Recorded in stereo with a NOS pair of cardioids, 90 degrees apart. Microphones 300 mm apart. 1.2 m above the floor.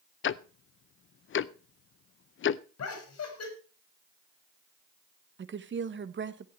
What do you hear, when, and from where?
0.2 s ticking: 45° left, 0.6 m
2.8 s laughter: 55° left, 4.5 m
5.4 s a woman speaking: 40° right, 1.3 m